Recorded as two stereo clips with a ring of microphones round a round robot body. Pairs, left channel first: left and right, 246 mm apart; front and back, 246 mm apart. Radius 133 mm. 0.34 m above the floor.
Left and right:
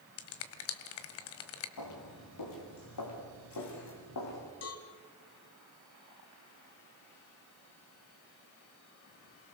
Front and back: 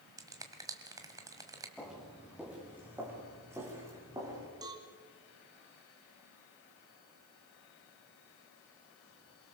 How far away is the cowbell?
About 2 m.